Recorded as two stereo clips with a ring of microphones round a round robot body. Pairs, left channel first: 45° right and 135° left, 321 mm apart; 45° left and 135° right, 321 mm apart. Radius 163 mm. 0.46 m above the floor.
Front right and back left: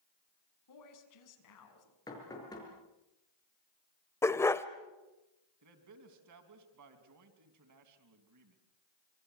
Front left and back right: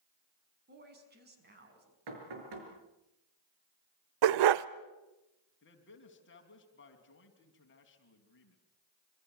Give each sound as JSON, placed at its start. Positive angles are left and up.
{"t": 0.7, "sound": "a woman speaking", "azimuth_deg": -75, "distance_m": 5.5}
{"t": 2.1, "sound": "knocking", "azimuth_deg": -125, "distance_m": 6.0}
{"t": 4.2, "sound": "a dog barking", "azimuth_deg": -125, "distance_m": 0.8}
{"t": 5.6, "sound": "a man speaking", "azimuth_deg": 100, "distance_m": 3.5}